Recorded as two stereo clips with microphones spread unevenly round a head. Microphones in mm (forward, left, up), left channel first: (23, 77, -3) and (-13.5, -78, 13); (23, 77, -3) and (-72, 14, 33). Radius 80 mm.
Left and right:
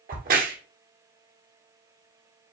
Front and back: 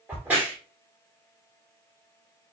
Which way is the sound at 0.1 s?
65° right.